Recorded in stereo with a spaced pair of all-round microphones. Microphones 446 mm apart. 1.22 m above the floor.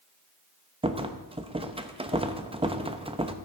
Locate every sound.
0.8 s a rattle: 15° right (ahead or behind), 0.6 m